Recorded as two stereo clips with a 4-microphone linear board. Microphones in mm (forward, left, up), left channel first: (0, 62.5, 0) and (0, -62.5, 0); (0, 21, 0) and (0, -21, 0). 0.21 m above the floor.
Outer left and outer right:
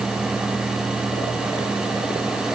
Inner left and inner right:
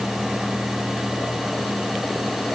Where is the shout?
No shout in this recording.